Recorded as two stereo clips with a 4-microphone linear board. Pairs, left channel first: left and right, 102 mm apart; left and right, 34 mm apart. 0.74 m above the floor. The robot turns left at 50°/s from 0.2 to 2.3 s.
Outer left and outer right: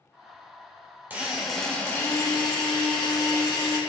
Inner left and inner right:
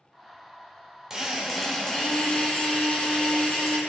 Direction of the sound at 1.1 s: 160° right.